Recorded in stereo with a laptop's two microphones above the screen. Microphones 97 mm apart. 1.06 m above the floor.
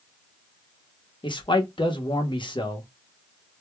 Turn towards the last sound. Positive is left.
turn(degrees=55)  # may be behind; listen again after turning